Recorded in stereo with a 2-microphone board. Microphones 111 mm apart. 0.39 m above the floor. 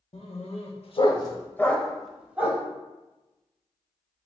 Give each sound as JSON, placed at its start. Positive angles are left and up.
{"t": 0.1, "sound": "a dog barking", "side_deg": 75, "distance_m": 0.8}